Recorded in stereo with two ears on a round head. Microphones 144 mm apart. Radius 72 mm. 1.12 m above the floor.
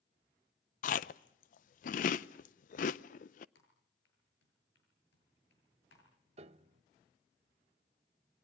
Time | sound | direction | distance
0.8 | chewing | 55° left (ahead or behind) | 0.6 m
3.5 | typing on a keyboard | 85° left | 8 m
6.4 | a piano | 40° right (ahead or behind) | 0.7 m